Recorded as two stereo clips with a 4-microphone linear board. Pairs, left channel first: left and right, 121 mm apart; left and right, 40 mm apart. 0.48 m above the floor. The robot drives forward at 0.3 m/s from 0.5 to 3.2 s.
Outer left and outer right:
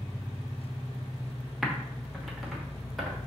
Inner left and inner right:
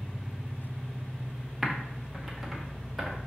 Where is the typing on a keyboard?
Centre (ahead or behind), 0.8 m.